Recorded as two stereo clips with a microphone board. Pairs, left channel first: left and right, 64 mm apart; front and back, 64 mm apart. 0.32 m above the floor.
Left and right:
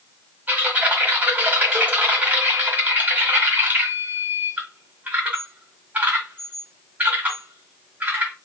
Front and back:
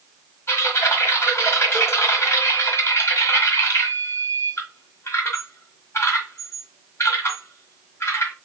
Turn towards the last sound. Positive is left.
turn(degrees=-30)